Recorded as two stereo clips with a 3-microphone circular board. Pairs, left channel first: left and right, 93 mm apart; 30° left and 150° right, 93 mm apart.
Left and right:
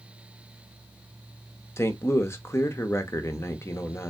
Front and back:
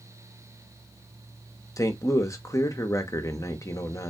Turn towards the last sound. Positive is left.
turn(degrees=50)